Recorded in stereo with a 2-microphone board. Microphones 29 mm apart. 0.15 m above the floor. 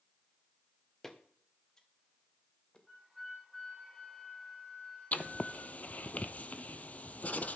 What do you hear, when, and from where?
1.0 s footsteps: 15° left (ahead or behind), 1.8 m; by 2.8 s 30° left (ahead or behind), 3 m
2.9 s a flute: 5° left (ahead or behind), 5 m
5.1 s writing: 55° left (ahead or behind), 0.8 m